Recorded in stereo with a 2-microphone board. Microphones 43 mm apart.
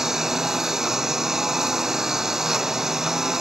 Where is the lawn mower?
10° right (ahead or behind).